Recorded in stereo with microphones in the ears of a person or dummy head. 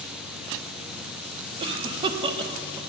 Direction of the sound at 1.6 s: 25° right (ahead or behind).